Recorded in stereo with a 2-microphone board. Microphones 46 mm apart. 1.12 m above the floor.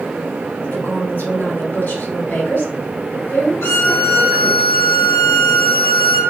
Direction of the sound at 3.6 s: 80° left.